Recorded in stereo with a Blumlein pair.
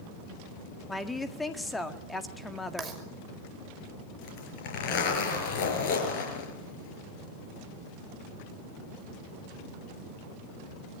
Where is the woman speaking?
10° left, 1.9 m.